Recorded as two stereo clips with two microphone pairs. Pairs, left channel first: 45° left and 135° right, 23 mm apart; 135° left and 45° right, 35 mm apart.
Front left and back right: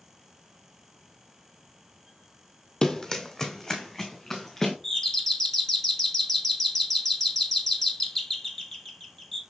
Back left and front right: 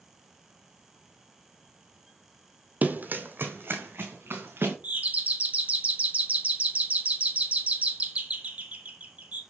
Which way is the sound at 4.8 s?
10° right.